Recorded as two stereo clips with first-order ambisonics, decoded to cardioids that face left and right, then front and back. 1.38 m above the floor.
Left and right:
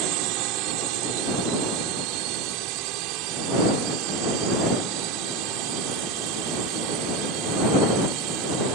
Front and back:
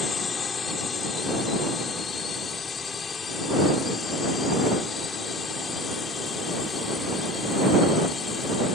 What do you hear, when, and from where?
0.0 s a drone: 70° right